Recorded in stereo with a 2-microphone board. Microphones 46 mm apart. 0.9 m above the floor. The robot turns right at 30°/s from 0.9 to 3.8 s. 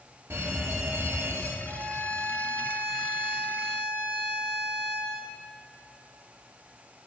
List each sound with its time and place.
0.3 s an alarm: 70° right (ahead or behind), 2.5 m; by 1.6 s 60° right (ahead or behind), 2.5 m
1.6 s a violin: 75° right, 4 m; by 5.2 s 10° right, 4 m